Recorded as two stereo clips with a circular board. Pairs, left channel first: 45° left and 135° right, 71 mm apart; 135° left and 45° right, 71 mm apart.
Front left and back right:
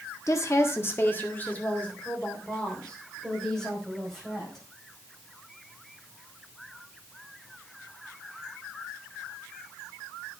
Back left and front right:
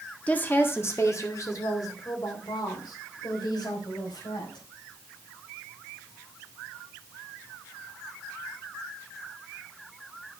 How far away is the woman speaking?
About 1.6 m.